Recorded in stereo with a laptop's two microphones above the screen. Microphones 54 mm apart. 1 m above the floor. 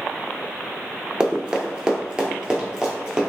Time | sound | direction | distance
1.2 | running footsteps | 20° right (ahead or behind) | 1.0 m